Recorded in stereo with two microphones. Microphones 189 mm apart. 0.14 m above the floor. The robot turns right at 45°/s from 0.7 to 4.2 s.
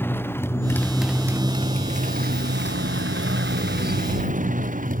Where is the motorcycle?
10° left (ahead or behind); by 5.0 s 45° right (ahead or behind).